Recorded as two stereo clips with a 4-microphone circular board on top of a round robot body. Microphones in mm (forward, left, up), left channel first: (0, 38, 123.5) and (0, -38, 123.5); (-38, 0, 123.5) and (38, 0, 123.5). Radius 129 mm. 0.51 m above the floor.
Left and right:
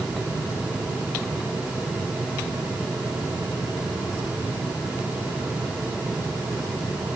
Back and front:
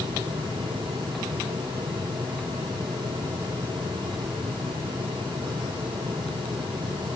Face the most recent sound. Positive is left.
No sound to turn to.